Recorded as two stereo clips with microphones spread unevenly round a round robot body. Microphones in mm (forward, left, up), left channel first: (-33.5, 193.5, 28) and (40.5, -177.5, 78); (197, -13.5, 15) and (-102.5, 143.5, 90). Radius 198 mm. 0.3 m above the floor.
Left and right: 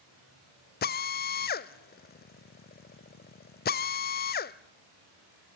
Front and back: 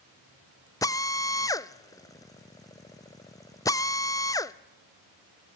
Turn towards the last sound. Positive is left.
turn(degrees=45)